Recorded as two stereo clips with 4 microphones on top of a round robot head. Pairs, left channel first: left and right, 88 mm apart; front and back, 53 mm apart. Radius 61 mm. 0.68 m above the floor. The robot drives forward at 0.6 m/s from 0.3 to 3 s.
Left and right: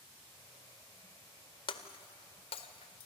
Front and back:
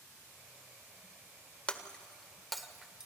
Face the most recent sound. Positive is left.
turn(degrees=100)